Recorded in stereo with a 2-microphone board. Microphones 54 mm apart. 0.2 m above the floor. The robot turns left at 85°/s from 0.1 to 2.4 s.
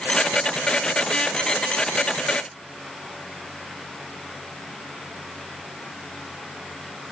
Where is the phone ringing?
No phone ringing in this recording.